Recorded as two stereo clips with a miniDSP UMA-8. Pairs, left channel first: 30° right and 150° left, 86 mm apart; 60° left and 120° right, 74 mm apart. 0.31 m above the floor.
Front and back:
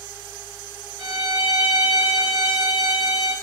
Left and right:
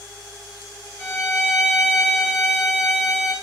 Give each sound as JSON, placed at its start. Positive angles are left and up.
{"t": 1.0, "sound": "a violin", "azimuth_deg": 125, "distance_m": 2.0}